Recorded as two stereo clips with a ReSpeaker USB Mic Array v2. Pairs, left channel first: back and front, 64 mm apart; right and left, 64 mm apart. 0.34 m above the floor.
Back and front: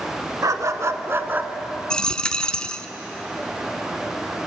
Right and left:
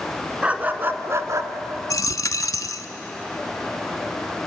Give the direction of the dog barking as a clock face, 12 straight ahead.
11 o'clock.